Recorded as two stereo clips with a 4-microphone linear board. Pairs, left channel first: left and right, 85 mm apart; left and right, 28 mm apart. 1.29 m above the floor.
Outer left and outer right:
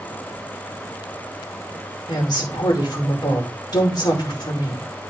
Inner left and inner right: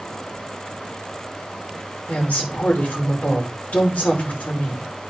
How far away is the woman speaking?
About 5 m.